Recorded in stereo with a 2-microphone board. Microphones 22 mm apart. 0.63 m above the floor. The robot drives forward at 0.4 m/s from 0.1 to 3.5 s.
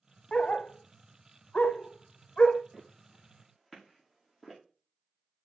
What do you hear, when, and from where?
0.3 s a dog barking: 50° left (ahead or behind), 0.6 m; by 2.6 s 40° left (ahead or behind), 0.8 m
2.7 s footsteps: 10° right (ahead or behind), 5.5 m; by 4.6 s 15° right (ahead or behind), 5 m